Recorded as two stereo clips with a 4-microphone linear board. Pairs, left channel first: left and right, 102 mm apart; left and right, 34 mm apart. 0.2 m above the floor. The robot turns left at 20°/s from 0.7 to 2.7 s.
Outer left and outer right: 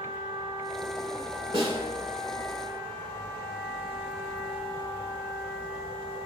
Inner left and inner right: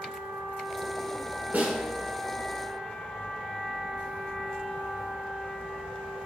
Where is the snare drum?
60° right (ahead or behind), 1.0 m.